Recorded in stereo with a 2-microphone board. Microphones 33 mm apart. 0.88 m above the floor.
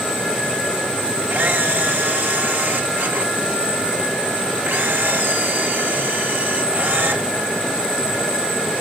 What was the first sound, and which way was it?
A camera shutter, 70° right (ahead or behind).